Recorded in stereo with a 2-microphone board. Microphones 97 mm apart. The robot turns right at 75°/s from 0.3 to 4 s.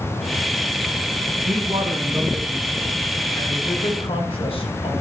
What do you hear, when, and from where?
1.4 s a man speaking: 90° right, 5 m; by 4.9 s 105° left, 5 m